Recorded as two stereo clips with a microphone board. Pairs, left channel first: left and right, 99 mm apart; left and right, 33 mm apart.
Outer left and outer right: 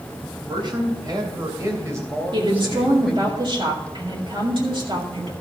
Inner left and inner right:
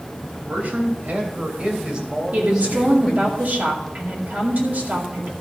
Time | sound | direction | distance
0.5 | a man speaking | 55° right (ahead or behind) | 3 m
2.3 | a woman speaking | 55° right (ahead or behind) | 2 m